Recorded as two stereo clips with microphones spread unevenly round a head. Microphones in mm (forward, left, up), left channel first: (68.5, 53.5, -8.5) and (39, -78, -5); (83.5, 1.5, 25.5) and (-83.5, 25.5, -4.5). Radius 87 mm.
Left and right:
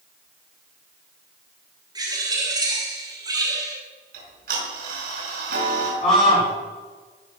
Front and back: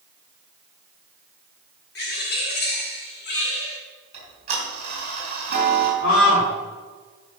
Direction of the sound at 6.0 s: 25° left.